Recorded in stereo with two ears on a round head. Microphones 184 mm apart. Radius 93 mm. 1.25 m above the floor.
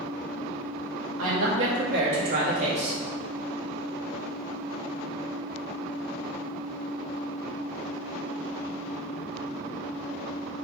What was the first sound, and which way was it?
A woman speaking, 85° right.